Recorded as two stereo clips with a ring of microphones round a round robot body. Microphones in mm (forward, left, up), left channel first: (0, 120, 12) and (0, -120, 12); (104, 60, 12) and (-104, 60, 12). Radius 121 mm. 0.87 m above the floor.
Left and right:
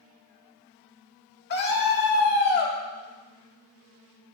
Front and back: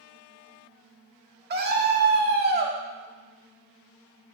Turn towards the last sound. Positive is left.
turn(degrees=140)